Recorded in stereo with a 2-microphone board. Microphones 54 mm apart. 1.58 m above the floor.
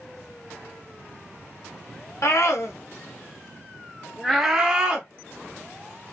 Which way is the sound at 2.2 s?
65° left (ahead or behind).